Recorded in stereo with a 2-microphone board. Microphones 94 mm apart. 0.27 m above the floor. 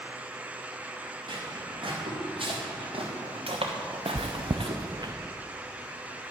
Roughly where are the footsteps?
Right.